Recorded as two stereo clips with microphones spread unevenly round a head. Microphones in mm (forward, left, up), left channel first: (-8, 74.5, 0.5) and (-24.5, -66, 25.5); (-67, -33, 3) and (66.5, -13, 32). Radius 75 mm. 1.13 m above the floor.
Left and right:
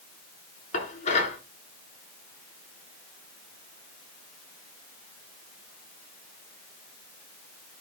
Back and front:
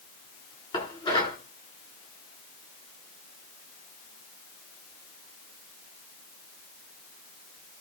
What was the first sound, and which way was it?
Dishes clattering, 130° left.